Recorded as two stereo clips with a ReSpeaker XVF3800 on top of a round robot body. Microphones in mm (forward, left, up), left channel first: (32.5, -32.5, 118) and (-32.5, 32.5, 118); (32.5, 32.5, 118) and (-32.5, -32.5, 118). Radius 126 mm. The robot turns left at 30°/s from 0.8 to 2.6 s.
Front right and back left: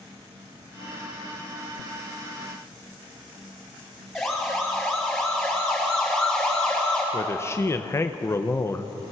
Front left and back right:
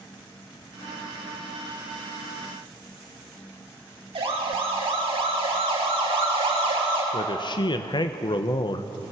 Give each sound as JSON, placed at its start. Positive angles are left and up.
{"t": 4.2, "sound": "a siren", "azimuth_deg": -135, "distance_m": 5.0}
{"t": 7.1, "sound": "a man speaking", "azimuth_deg": 15, "distance_m": 0.9}